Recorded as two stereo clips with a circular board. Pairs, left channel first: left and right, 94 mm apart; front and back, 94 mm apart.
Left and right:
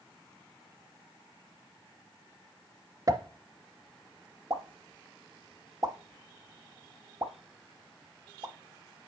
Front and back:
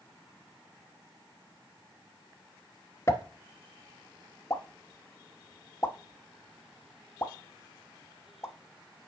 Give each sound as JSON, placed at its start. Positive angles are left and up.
{"t": 3.1, "sound": "a pop", "azimuth_deg": -50, "distance_m": 0.8}